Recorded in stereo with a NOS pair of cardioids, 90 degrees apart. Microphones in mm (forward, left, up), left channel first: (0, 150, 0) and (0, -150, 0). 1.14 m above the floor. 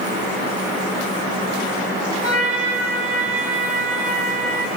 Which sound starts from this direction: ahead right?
A trumpet, at 2.2 s.